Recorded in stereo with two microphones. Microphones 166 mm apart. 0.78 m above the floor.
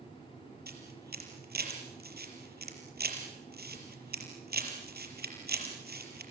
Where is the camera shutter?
75° right (ahead or behind), 5 m.